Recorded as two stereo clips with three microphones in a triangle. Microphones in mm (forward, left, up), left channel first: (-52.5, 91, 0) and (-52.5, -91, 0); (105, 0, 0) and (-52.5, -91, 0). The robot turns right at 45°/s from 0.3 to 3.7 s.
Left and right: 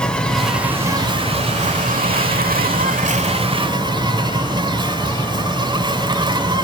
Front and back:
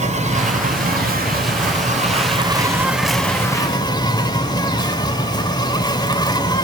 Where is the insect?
175° left, 1.1 m; by 6.7 s 35° right, 1.1 m.